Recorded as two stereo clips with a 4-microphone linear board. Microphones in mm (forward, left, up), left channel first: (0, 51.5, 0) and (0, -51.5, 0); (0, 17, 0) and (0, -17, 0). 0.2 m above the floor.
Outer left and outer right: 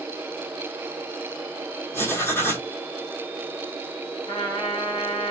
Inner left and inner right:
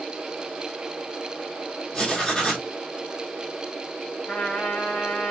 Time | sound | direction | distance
1.9 | writing | 25° left (ahead or behind) | 1.4 m
4.3 | a trumpet | 60° left (ahead or behind) | 2.5 m